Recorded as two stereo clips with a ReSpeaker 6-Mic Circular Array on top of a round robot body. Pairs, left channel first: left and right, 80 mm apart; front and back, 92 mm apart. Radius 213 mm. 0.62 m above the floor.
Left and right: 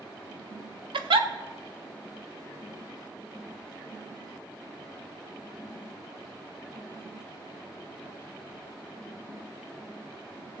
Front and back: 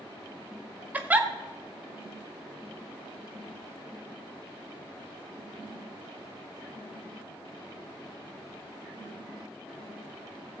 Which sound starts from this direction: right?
A giggle, at 0.9 s.